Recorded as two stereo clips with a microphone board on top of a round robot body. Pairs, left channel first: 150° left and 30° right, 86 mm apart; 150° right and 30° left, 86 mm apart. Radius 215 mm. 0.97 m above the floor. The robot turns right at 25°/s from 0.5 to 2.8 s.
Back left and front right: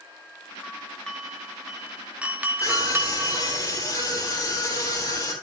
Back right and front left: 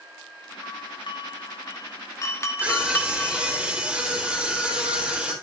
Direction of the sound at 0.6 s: 145° right.